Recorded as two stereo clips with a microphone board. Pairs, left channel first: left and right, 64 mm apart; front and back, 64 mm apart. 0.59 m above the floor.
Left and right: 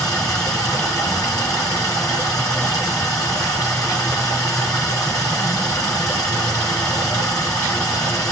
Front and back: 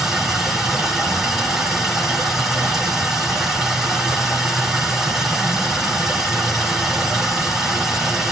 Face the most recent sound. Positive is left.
turn(degrees=100)